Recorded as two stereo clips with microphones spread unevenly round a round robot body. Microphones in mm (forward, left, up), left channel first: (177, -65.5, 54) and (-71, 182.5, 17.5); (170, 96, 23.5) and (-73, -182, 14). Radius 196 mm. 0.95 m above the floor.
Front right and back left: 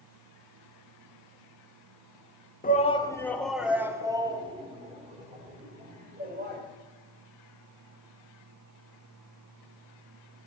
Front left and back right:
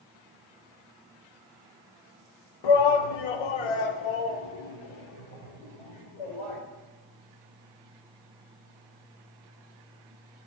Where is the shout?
25° left, 1.3 m; by 6.6 s 70° left, 4.5 m.